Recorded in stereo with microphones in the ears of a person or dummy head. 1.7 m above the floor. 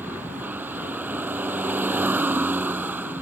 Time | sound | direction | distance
0.0 | a vehicle | 10° right (ahead or behind) | ?